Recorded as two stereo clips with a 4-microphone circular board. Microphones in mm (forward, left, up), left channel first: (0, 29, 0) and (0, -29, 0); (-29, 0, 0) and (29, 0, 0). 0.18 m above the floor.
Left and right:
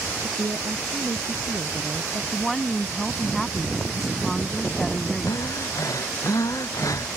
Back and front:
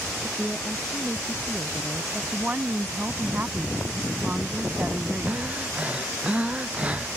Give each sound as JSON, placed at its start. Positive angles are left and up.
{"t": 0.2, "sound": "a woman speaking", "azimuth_deg": -85}
{"t": 2.3, "sound": "a woman speaking", "azimuth_deg": 10}
{"t": 5.3, "sound": "breathing", "azimuth_deg": 70}